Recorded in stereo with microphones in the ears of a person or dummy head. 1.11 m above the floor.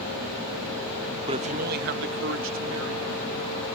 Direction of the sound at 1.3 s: 25° right (ahead or behind).